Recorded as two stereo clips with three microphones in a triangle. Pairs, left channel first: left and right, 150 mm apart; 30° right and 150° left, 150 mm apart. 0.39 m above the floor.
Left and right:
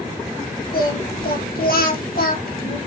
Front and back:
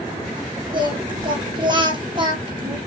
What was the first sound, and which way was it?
Singing, 90° left.